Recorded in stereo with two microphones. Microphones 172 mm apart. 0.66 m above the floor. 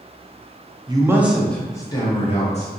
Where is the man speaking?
25° right (ahead or behind), 0.6 m; by 2.7 s 40° left (ahead or behind), 0.9 m.